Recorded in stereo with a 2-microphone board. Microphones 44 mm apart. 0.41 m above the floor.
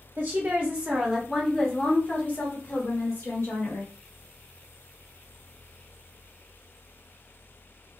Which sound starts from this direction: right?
A woman speaking, at 0.2 s.